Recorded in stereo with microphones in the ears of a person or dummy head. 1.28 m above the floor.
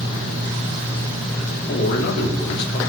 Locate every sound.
1.7 s a man speaking: 60° left (ahead or behind), 2.5 m